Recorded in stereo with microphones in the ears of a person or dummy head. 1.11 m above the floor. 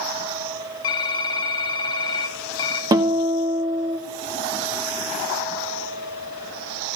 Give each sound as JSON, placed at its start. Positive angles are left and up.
{"t": 0.8, "sound": "typing on a keyboard", "side_deg": 20, "distance_m": 0.7}
{"t": 2.9, "sound": "a guitar", "side_deg": -25, "distance_m": 1.0}